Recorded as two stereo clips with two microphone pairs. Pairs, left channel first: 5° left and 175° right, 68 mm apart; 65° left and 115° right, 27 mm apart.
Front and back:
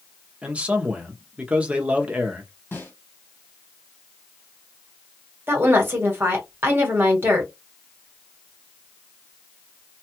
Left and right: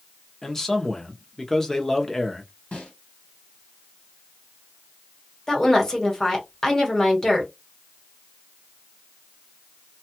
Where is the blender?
I don't hear a blender.